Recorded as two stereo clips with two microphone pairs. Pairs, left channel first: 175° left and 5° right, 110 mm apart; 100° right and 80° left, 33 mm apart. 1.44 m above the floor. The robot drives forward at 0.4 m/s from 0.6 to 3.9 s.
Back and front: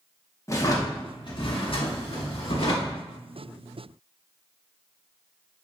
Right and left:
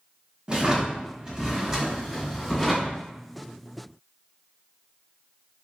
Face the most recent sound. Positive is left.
turn(degrees=170)